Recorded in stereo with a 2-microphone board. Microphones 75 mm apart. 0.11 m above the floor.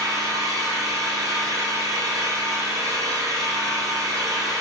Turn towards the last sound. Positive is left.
turn(degrees=-50)  # may be behind; listen again after turning